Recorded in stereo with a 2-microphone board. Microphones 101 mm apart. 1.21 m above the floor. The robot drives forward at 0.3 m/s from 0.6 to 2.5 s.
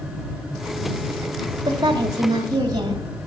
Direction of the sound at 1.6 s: 45° right (ahead or behind).